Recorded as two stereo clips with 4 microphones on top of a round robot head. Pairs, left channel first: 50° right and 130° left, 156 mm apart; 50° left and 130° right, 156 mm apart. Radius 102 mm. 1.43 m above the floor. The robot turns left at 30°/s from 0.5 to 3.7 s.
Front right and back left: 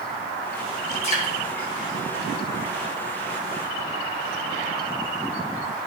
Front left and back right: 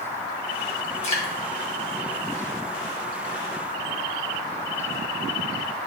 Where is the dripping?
Straight ahead, 2.5 m; by 1.3 s 10° right, 2.5 m.